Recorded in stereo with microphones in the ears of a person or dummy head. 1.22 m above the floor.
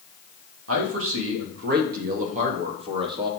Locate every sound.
0.7 s a man speaking: 85° right, 1.6 m; by 3.3 s 30° right (ahead or behind), 1.7 m